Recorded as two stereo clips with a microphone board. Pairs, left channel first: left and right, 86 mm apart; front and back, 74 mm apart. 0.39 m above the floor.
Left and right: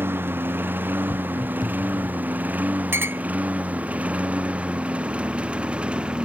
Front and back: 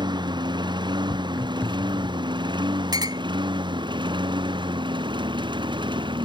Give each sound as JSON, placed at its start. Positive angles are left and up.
{"t": 0.0, "sound": "a lawn mower", "azimuth_deg": -155}
{"t": 1.1, "sound": "footsteps", "azimuth_deg": 45}
{"t": 2.9, "sound": "a clink", "azimuth_deg": -155}